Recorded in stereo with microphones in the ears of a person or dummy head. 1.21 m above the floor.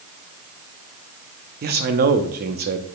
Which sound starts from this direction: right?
A man speaking, at 1.6 s.